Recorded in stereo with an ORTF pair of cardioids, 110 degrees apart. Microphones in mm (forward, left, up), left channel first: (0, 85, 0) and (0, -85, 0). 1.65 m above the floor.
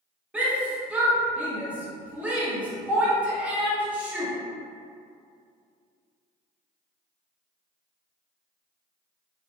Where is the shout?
10° right, 1.0 m.